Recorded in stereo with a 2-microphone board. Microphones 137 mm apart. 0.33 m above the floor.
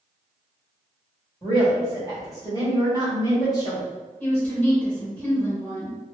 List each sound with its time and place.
1.4 s a woman speaking: 25° left (ahead or behind), 1.2 m
4.2 s a woman speaking: 10° left (ahead or behind), 1.1 m